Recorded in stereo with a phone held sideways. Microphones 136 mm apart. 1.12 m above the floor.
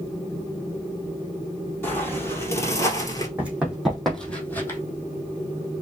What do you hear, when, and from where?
1.8 s footsteps: 15° left (ahead or behind), 2 m; by 3.3 s 30° left (ahead or behind), 1.3 m
3.4 s running footsteps: 10° right (ahead or behind), 2.5 m; by 4.8 s 20° left (ahead or behind), 1.7 m